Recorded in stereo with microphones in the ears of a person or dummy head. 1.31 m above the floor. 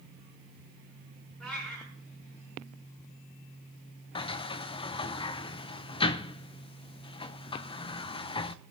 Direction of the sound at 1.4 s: Centre (ahead or behind).